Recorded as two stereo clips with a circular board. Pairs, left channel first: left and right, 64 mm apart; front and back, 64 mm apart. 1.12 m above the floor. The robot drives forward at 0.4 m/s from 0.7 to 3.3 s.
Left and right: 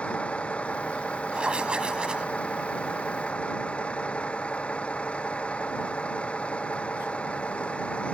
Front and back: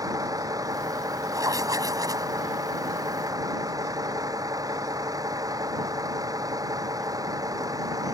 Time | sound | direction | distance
0.0 | a vehicle | 160° left | ?
1.3 | writing | 165° right | ?